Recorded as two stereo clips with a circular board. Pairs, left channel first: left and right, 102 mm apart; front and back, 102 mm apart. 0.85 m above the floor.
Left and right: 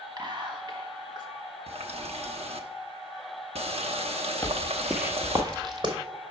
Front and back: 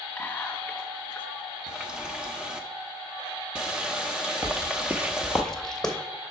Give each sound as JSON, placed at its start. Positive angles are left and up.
{"t": 0.2, "sound": "whispering", "azimuth_deg": -70, "distance_m": 1.4}
{"t": 1.7, "sound": "a running tap", "azimuth_deg": -100, "distance_m": 0.8}
{"t": 4.4, "sound": "footsteps", "azimuth_deg": 135, "distance_m": 1.1}